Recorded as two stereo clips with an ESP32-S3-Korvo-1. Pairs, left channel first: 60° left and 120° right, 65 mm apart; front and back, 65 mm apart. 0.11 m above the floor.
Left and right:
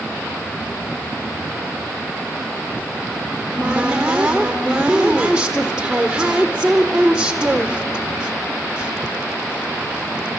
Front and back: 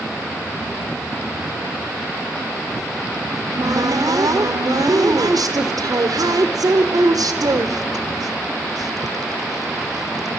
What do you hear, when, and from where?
3.3 s a cupboard door: 165° left, 1.6 m